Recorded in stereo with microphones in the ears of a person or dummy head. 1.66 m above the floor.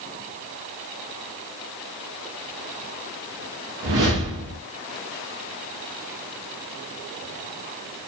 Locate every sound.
3.8 s a whoosh: 40° right (ahead or behind), 0.5 m